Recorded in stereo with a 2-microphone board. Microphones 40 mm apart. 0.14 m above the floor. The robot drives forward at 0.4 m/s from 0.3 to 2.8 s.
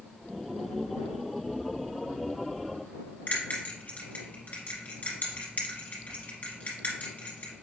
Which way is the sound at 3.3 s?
45° left (ahead or behind).